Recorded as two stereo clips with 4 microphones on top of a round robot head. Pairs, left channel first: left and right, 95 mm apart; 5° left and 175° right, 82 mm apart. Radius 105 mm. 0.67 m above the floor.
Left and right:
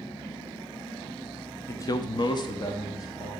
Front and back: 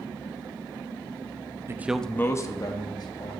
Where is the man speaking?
145° left, 0.6 m; by 3.3 s 40° left, 1.6 m.